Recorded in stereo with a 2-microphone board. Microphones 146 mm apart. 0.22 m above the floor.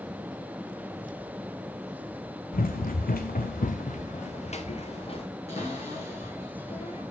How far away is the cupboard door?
About 4 m.